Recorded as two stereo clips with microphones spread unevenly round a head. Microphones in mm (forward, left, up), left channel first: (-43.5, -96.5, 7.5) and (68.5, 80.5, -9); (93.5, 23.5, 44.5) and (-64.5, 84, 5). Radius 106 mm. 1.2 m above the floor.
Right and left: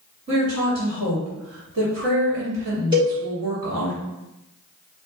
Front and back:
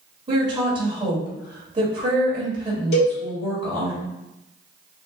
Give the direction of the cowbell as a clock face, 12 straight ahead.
12 o'clock.